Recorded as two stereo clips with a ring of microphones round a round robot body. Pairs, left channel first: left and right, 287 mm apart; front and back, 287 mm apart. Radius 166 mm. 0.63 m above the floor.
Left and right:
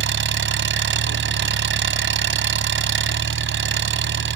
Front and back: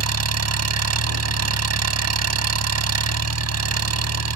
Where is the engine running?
145° right.